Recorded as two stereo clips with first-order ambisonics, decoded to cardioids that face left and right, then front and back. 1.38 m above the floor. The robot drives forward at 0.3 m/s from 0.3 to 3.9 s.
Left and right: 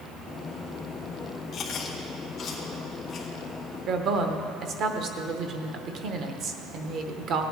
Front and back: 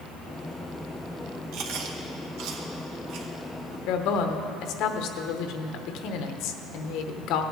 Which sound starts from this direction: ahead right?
A woman speaking, at 3.9 s.